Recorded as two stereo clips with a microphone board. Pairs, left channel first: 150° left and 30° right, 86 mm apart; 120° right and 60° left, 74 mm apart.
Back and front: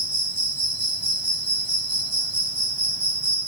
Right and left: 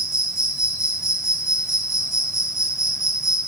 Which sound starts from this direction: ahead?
An insect, at 0.0 s.